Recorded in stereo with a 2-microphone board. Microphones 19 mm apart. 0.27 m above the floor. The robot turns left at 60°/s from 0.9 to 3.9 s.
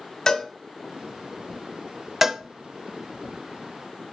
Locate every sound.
0.3 s a cowbell: 35° left (ahead or behind), 1.6 m
2.2 s a cowbell: 15° right (ahead or behind), 0.6 m; by 2.4 s 30° right (ahead or behind), 0.6 m